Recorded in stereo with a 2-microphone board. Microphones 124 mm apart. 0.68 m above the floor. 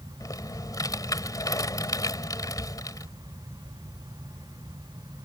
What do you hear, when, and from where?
0.2 s typing on a keyboard: 30° left (ahead or behind)